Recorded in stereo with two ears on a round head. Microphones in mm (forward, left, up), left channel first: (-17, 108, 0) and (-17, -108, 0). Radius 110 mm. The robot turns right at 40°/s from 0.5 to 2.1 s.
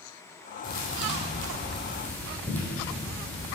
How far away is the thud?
About 2.5 m.